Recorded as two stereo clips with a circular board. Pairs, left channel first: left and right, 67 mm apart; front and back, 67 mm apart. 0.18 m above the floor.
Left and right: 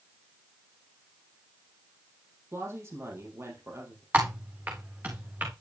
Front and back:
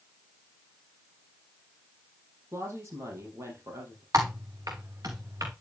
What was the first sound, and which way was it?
A woman speaking, 135° right.